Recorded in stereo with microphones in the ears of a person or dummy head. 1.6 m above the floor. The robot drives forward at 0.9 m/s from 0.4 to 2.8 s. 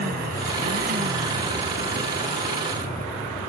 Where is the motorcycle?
50° right (ahead or behind); by 3.5 s 35° right (ahead or behind).